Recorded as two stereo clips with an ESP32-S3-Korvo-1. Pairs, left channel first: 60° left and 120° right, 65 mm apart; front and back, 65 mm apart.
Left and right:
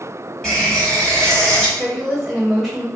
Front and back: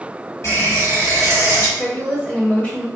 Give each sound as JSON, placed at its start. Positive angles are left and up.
{"t": 0.4, "sound": "a running tap", "azimuth_deg": -20, "distance_m": 1.3}
{"t": 1.8, "sound": "a woman speaking", "azimuth_deg": -20, "distance_m": 1.2}